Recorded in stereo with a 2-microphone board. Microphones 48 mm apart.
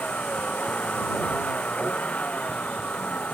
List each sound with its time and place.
0.0 s a vehicle: 25° left (ahead or behind)